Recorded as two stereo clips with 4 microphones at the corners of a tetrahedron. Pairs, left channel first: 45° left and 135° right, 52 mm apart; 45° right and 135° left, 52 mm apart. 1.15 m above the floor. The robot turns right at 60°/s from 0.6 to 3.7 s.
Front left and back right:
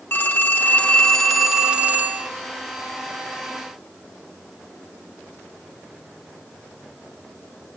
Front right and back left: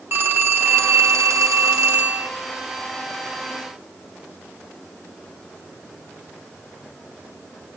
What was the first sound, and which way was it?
A phone ringing, 90° left.